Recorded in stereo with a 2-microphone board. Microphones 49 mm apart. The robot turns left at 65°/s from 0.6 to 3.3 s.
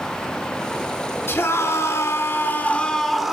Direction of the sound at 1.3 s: 125° left.